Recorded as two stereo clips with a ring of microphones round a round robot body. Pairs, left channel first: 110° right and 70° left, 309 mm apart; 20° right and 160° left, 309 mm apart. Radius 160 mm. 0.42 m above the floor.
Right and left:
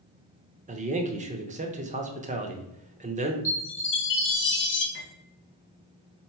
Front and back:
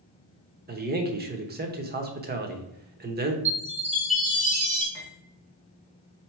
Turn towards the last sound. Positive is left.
turn(degrees=-165)